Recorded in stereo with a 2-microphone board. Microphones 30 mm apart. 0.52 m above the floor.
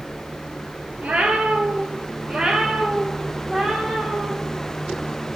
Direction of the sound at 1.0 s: 60° right (ahead or behind).